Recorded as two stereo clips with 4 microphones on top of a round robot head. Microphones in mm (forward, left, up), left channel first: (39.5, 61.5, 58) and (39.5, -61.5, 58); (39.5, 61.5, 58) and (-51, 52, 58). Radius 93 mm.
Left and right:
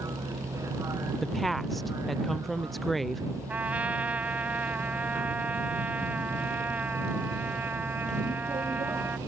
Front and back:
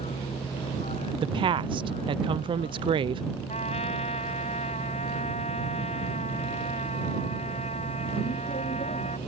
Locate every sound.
0.0 s a vehicle: 25° right
1.2 s a woman speaking: straight behind
3.5 s a trumpet: 15° right